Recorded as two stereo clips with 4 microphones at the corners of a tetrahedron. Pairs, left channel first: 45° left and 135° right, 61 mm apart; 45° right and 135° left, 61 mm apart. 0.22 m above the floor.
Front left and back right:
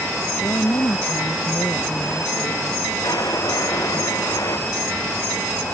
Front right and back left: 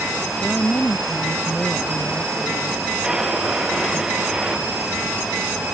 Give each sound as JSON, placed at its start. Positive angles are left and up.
{"t": 0.4, "sound": "a woman speaking", "azimuth_deg": 25}
{"t": 3.0, "sound": "a drawer", "azimuth_deg": 60}